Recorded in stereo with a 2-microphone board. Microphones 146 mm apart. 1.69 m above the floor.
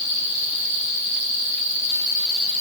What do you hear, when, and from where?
Only background noise.